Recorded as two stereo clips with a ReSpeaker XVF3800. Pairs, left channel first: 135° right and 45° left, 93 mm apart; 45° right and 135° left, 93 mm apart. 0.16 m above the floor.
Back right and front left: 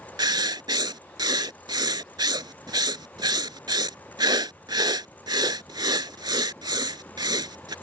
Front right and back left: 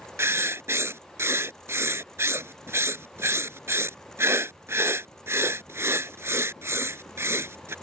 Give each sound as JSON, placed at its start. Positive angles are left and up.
{"t": 0.2, "sound": "writing", "azimuth_deg": 75}